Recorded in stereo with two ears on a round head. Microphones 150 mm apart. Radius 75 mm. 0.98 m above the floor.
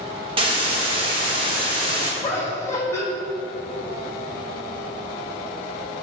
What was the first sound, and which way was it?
A hiss, 30° right (ahead or behind).